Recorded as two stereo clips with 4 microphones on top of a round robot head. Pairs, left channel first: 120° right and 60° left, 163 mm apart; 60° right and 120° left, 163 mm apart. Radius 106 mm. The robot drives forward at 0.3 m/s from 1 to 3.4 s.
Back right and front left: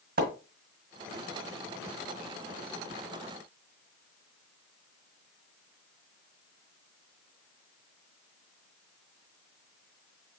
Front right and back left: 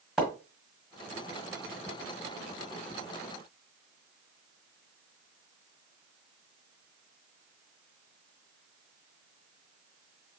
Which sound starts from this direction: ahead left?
A splash, at 0.2 s.